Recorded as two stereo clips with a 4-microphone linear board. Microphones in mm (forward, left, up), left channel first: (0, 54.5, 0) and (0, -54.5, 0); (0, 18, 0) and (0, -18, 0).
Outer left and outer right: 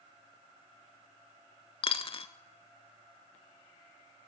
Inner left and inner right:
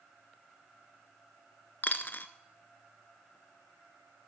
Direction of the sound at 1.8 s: 55° left (ahead or behind).